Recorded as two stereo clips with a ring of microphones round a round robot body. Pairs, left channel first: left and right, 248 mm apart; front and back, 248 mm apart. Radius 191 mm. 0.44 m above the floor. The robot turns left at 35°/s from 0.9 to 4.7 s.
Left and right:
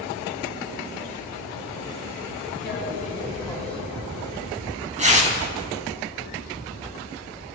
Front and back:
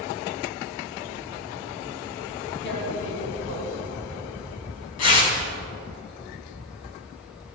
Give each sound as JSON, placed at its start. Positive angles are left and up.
{"t": 2.6, "sound": "tearing paper", "azimuth_deg": 45, "distance_m": 4.0}